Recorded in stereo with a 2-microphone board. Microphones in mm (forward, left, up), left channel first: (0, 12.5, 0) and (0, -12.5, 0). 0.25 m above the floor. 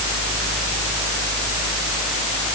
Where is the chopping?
No chopping in this recording.